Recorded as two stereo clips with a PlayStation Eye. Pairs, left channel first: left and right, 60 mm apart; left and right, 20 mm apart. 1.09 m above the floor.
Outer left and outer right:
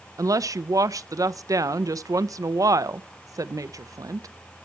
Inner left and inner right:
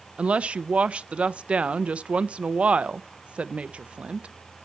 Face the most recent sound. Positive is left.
turn(degrees=-75)  # may be behind; listen again after turning